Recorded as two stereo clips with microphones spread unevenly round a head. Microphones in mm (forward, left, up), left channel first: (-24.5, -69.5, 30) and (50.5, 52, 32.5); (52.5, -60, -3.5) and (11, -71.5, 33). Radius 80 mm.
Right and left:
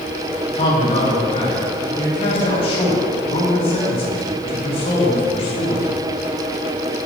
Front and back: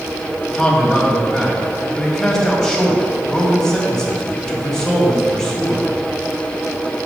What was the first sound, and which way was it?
A man speaking, 70° right.